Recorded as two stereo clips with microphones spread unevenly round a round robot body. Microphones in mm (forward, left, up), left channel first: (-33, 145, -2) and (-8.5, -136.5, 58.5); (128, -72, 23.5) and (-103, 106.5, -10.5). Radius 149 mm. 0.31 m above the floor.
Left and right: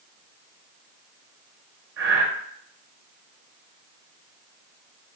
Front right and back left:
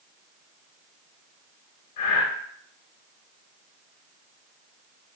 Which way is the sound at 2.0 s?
30° right.